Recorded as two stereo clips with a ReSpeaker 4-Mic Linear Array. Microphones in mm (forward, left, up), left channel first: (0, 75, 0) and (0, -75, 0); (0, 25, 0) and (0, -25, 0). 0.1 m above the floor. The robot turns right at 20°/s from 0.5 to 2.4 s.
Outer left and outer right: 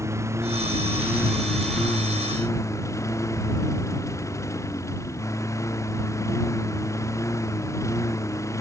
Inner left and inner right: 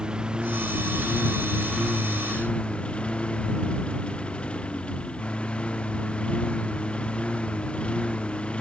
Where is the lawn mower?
20° right; by 8.6 s 20° left.